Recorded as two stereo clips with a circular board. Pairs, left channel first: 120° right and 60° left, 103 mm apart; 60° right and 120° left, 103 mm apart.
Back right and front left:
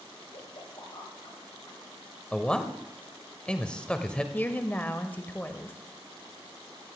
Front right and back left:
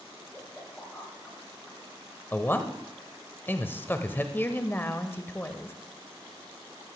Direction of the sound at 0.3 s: 140° right.